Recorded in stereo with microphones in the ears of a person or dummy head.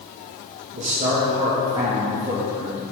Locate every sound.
0.7 s a man speaking: 35° right (ahead or behind), 1.7 m; by 2.9 s 5° right (ahead or behind), 3 m